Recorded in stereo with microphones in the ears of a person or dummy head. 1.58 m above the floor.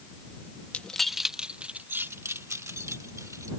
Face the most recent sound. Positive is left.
turn(degrees=-15)  # may be behind; listen again after turning